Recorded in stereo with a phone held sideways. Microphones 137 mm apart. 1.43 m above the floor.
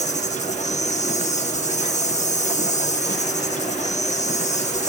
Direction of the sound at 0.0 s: 60° left (ahead or behind).